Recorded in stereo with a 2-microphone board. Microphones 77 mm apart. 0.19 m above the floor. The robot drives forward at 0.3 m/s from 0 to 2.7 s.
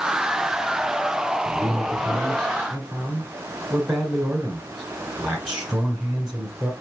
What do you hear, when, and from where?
1.4 s a man speaking: 5° right (ahead or behind), 1.7 m